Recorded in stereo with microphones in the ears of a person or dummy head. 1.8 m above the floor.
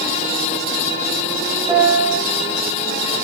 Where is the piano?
10° right (ahead or behind), 0.7 m.